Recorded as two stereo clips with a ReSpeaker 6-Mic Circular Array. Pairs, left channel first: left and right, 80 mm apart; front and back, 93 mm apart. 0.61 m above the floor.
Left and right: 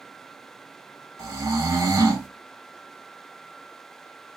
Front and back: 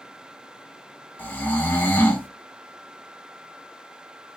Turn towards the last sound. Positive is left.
turn(degrees=-60)